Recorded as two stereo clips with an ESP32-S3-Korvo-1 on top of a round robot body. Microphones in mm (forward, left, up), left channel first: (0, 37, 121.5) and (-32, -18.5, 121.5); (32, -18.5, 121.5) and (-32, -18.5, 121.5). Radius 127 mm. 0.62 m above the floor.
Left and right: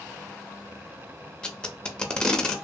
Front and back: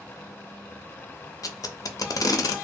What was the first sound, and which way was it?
Tape being pulled, 15° right.